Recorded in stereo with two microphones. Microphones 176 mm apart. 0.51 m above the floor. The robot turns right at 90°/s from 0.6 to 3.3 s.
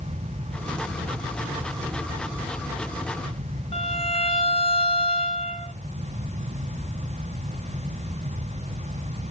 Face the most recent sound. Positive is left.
turn(degrees=30)  # may be behind; listen again after turning